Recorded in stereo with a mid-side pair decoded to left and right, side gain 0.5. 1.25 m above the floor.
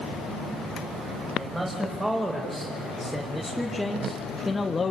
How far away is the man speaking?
About 6 m.